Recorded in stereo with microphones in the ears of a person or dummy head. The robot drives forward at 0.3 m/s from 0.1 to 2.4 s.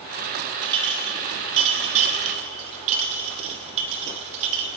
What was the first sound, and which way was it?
A clink, 25° right (ahead or behind).